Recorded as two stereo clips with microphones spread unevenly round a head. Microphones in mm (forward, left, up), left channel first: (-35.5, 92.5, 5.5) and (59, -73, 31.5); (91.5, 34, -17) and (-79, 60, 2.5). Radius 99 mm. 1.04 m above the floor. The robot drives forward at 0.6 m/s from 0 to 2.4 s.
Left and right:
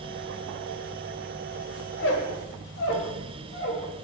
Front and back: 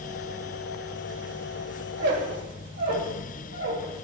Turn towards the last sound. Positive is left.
turn(degrees=155)